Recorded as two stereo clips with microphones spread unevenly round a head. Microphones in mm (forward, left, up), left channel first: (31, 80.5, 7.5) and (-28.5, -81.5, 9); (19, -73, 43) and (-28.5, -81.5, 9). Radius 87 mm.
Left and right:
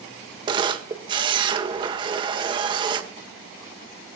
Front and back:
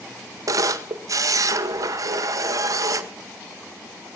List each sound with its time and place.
0.5 s a camera shutter: 175° right, 1.6 m